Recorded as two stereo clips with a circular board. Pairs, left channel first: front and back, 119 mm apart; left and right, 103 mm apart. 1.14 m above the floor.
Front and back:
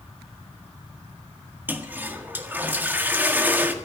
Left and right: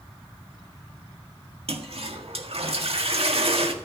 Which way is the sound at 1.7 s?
105° right.